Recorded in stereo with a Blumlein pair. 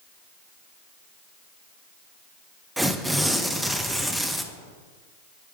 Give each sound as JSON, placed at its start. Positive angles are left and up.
{"t": 2.8, "sound": "tearing paper", "azimuth_deg": -5, "distance_m": 0.7}